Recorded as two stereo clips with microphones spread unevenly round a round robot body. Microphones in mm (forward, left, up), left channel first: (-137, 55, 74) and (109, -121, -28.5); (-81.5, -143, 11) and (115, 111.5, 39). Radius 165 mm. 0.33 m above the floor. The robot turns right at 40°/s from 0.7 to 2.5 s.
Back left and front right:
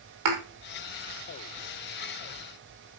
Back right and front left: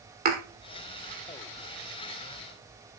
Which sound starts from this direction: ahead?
A thud, at 0.2 s.